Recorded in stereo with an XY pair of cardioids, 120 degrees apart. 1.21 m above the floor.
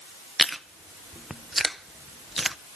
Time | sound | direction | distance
0.4 | chewing | 5° right | 0.6 m